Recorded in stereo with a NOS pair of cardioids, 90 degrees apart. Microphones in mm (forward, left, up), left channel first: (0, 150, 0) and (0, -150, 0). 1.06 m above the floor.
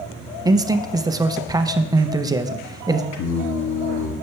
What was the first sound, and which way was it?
A man speaking, 15° right.